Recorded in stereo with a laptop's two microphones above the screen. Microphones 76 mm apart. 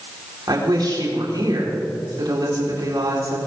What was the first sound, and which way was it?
A woman speaking, 65° right (ahead or behind).